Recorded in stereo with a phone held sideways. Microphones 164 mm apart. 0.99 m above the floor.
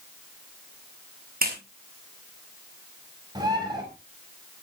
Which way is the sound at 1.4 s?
60° right (ahead or behind).